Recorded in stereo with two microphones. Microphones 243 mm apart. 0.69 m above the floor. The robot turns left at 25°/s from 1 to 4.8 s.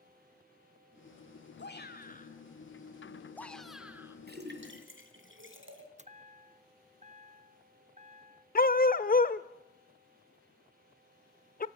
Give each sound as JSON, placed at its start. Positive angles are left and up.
{"t": 1.6, "sound": "a shout", "azimuth_deg": 50, "distance_m": 2.0}
{"t": 4.3, "sound": "a splash", "side_deg": -40, "distance_m": 2.5}
{"t": 6.0, "sound": "a chime", "side_deg": -30, "distance_m": 0.7}
{"t": 8.6, "sound": "a dog barking", "side_deg": 35, "distance_m": 0.7}